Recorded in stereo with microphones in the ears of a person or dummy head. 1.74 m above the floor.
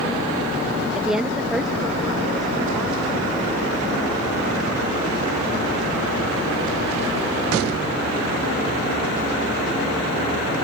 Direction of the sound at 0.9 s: 5° right (ahead or behind).